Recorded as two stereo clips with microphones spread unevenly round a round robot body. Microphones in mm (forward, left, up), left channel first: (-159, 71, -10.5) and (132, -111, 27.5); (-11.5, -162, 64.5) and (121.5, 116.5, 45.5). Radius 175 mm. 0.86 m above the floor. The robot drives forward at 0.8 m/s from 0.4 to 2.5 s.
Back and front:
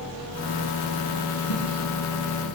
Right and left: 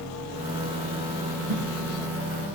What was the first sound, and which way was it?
A whoosh, 100° left.